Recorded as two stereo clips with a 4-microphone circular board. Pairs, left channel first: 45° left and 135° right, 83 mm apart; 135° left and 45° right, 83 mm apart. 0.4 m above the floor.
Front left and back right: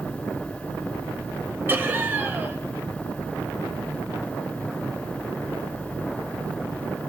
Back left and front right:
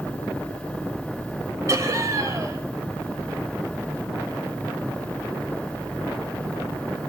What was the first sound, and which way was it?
Laughter, 80° right.